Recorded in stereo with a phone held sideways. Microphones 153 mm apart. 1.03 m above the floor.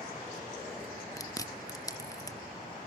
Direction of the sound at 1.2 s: 20° left (ahead or behind).